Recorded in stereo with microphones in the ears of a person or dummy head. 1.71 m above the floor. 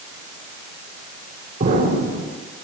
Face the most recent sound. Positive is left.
turn(degrees=-45)  # may be behind; listen again after turning